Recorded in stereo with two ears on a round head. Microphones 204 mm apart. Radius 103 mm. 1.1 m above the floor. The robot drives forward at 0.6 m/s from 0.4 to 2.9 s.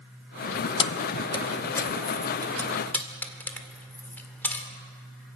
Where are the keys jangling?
25° left (ahead or behind), 0.7 m; by 4.7 s 10° left (ahead or behind), 1.9 m.